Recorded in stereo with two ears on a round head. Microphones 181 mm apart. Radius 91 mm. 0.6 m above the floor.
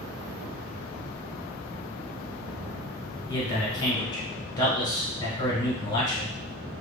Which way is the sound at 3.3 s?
20° left (ahead or behind).